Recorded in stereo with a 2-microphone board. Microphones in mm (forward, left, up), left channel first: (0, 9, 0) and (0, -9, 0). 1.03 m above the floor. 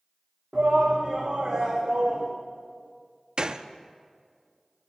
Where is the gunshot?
40° right (ahead or behind), 0.5 m.